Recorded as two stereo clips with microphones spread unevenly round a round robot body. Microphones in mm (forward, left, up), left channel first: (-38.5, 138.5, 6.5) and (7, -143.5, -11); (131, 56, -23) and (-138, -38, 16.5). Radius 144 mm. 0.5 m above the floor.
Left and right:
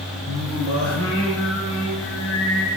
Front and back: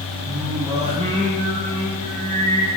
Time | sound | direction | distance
0.3 | singing | 135° left | 2.5 m